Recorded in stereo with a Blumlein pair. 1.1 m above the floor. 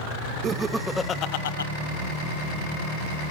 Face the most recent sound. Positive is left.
turn(degrees=75)